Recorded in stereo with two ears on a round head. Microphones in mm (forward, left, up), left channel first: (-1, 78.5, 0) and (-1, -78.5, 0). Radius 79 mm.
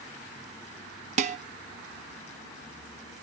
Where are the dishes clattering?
40° right (ahead or behind), 1.0 m.